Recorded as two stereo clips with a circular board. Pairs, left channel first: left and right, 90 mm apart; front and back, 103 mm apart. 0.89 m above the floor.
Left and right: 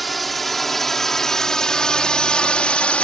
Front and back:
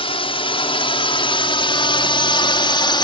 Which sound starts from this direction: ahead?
A drone, at 0.0 s.